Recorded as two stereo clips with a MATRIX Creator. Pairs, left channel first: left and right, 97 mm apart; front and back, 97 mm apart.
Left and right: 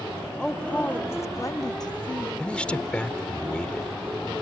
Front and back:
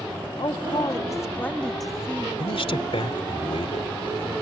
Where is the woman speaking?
5° left; by 2.3 s 110° left.